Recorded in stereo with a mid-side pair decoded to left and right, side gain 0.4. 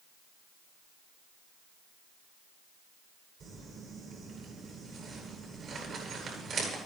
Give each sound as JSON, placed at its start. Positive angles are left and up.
{"t": 3.4, "sound": "crumpling", "azimuth_deg": -60, "distance_m": 10.0}